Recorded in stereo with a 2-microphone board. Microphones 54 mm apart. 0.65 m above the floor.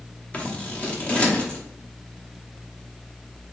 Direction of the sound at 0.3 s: 25° left (ahead or behind).